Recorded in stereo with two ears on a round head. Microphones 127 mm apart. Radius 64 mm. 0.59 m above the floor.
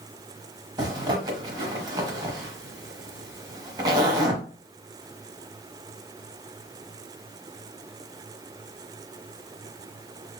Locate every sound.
0.8 s a zipper: 30° right (ahead or behind), 0.9 m